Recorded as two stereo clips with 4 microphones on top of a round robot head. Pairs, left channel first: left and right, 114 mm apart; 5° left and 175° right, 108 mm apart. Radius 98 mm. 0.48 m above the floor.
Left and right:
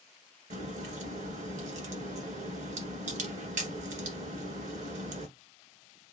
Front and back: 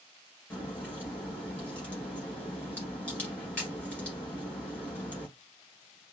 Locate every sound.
0.5 s a crack: 75° right, 1.6 m